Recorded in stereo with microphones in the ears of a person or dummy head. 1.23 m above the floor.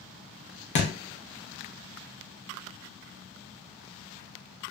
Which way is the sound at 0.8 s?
40° left (ahead or behind).